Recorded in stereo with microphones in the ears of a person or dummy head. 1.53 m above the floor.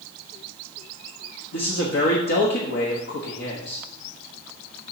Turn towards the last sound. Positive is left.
turn(degrees=65)  # may be behind; listen again after turning